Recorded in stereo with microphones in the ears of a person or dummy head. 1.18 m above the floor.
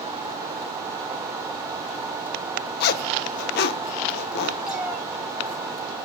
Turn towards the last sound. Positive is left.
turn(degrees=-5)  # may be behind; listen again after turning